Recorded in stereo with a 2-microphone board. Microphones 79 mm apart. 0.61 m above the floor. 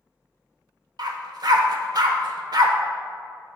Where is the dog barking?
55° right (ahead or behind), 0.7 m.